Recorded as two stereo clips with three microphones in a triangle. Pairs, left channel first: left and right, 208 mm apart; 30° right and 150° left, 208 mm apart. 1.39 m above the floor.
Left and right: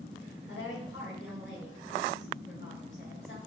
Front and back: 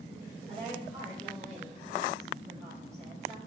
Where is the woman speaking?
60° left, 2 m.